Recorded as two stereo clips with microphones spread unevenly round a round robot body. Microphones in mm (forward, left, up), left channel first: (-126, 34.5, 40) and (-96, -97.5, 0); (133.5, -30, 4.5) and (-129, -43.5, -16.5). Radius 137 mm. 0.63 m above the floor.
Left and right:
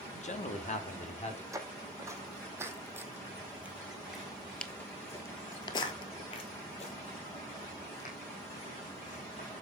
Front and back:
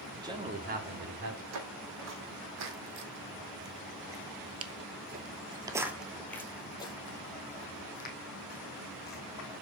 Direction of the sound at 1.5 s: 150° right.